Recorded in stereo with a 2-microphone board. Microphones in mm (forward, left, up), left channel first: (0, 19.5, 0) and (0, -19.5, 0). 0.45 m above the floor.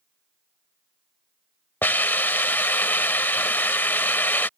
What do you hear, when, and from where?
1.8 s a hiss: 55° left (ahead or behind)